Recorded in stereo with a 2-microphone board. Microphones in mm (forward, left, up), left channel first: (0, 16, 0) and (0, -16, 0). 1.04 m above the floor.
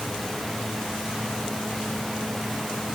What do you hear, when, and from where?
Only background noise.